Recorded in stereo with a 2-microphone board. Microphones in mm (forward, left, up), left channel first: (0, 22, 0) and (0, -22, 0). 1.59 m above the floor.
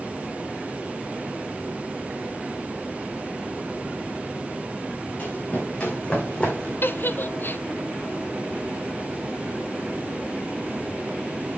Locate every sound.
5.2 s running footsteps: 30° left (ahead or behind), 4.5 m; by 6.7 s 25° left (ahead or behind), 3.5 m
6.8 s a giggle: 55° left (ahead or behind), 0.5 m